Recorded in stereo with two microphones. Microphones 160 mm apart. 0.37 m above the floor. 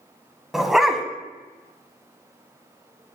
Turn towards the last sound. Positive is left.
turn(degrees=-5)  # may be behind; listen again after turning